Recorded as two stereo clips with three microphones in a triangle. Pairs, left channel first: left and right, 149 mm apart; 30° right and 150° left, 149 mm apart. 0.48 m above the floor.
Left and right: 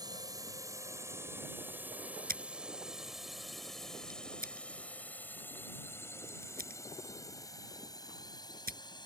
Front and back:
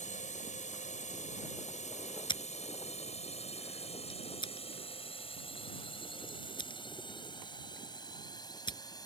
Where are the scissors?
90° right.